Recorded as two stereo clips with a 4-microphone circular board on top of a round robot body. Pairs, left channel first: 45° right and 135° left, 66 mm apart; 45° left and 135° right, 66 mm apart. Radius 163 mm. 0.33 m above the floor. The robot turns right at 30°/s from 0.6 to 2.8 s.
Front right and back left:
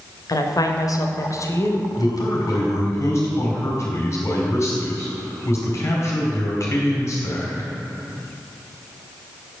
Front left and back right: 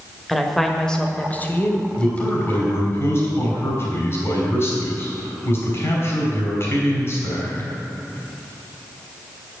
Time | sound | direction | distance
0.3 | a woman speaking | 40° right | 1.6 m
2.0 | a man speaking | 30° right | 4 m